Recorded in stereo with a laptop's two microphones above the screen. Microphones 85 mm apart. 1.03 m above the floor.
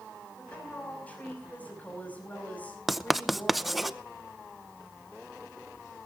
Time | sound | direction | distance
0.4 | a woman speaking | 20° left (ahead or behind) | 6 m
2.9 | writing | centre (ahead or behind) | 0.7 m